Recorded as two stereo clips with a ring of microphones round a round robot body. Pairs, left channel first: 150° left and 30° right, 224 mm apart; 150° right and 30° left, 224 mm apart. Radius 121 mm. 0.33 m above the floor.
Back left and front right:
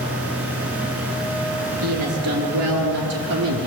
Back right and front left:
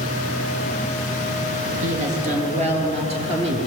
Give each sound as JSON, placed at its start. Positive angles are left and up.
{"t": 1.8, "sound": "a woman speaking", "azimuth_deg": -25, "distance_m": 5.0}